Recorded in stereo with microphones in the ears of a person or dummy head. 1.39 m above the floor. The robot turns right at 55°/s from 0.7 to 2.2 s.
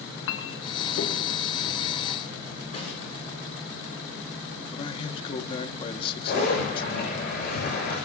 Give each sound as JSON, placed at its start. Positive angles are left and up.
{"t": 0.3, "sound": "a clink", "side_deg": 80, "distance_m": 1.3}
{"t": 2.7, "sound": "a snare drum", "side_deg": 40, "distance_m": 7.0}
{"t": 4.7, "sound": "a man speaking", "side_deg": 30, "distance_m": 1.6}
{"t": 6.3, "sound": "a zipper", "side_deg": 65, "distance_m": 9.5}